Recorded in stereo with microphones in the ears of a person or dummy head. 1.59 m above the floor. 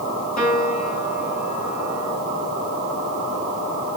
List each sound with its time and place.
0.4 s a piano: 50° left (ahead or behind), 5.5 m